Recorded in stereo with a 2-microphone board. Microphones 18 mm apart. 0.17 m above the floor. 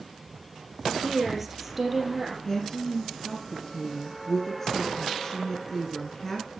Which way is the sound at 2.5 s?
25° left (ahead or behind).